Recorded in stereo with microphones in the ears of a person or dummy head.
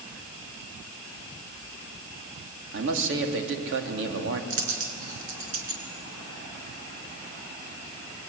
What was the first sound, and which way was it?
A man speaking, 75° right (ahead or behind).